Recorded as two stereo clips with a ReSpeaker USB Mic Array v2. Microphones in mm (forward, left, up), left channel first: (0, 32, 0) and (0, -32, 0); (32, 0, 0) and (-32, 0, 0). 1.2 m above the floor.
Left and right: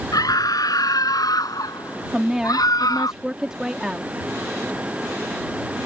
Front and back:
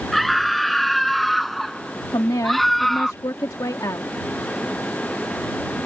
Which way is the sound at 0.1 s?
90° left.